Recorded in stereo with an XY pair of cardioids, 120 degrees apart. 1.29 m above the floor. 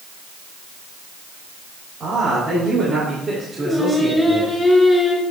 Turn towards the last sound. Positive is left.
turn(degrees=10)